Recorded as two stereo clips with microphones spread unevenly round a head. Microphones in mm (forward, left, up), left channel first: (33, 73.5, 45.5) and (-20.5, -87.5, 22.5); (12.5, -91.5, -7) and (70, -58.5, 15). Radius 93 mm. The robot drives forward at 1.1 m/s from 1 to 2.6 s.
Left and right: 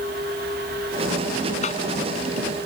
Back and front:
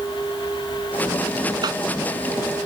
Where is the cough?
20° left.